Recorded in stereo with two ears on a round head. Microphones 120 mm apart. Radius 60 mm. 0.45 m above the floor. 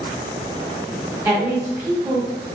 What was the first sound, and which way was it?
A woman speaking, 20° right (ahead or behind).